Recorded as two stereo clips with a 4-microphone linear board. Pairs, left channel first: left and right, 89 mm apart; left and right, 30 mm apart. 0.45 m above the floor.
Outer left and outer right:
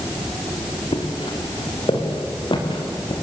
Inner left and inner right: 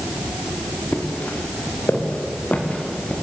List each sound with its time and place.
0.9 s footsteps: 75° left (ahead or behind), 4 m; by 3.1 s 70° left (ahead or behind), 5 m